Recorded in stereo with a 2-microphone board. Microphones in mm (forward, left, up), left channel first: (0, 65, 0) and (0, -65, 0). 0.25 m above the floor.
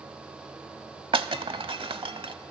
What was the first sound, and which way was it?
Breaking glass, 40° right (ahead or behind).